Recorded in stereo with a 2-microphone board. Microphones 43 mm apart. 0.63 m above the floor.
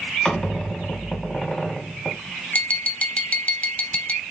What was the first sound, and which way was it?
A squeak, 15° left (ahead or behind).